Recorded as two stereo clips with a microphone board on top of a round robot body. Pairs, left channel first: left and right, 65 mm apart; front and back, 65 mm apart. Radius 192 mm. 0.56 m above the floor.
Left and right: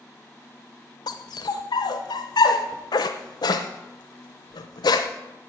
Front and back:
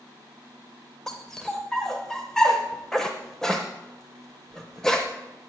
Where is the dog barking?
85° left, 0.7 m.